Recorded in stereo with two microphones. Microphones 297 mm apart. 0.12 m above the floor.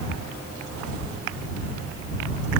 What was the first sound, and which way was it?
Only background noise.